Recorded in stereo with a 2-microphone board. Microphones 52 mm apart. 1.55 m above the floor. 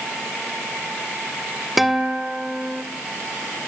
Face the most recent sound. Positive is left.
turn(degrees=-5)  # may be behind; listen again after turning